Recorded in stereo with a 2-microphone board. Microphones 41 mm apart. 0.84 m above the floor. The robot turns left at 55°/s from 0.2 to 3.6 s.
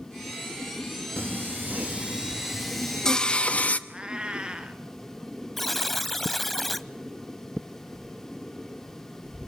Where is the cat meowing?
20° right (ahead or behind), 2 m.